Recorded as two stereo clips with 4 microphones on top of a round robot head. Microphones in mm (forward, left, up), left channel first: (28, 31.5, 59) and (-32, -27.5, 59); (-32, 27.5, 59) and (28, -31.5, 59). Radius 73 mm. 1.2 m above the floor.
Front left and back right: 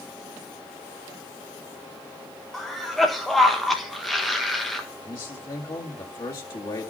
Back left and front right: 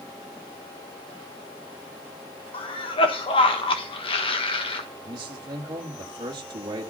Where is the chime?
No chime in this recording.